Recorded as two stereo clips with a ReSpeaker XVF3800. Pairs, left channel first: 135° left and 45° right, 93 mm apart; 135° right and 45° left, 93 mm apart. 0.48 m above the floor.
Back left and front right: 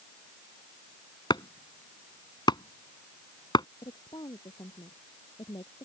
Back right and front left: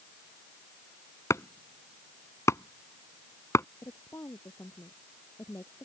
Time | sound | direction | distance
1.3 | chopping | 170° left | ?
3.8 | a woman speaking | 170° left | ?